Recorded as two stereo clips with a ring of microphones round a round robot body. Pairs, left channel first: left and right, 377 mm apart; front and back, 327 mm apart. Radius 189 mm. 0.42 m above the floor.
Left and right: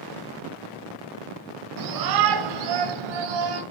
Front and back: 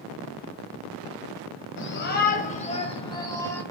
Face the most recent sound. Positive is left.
turn(degrees=-85)